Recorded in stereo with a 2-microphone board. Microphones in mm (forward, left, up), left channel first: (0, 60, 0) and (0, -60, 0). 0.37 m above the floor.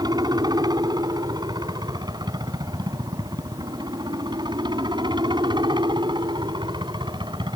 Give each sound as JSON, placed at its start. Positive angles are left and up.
{"t": 0.0, "sound": "a helicopter", "side_deg": -35}